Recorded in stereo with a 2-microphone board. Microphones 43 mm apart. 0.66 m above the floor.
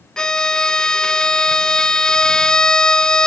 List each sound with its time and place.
0.2 s a violin: 15° left (ahead or behind)